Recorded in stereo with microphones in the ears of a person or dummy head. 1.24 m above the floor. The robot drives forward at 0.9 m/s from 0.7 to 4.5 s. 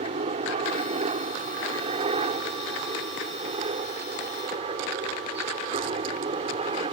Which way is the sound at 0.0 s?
35° right (ahead or behind).